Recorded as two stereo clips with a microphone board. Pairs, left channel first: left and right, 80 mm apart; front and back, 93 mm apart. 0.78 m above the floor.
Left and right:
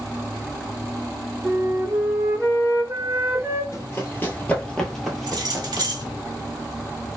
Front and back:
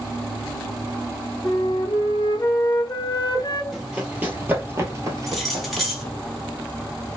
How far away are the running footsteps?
About 0.9 m.